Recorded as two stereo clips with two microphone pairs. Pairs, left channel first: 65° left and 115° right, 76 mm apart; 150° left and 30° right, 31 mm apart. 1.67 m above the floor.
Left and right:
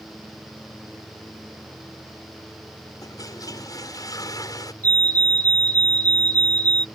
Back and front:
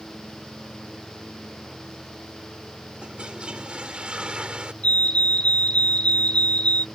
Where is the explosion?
I don't hear an explosion.